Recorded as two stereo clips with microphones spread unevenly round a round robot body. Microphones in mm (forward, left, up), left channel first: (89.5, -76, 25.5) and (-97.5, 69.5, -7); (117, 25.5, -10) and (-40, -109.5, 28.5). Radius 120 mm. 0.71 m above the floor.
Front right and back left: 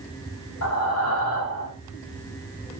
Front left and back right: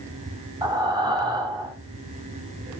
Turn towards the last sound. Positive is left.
turn(degrees=-65)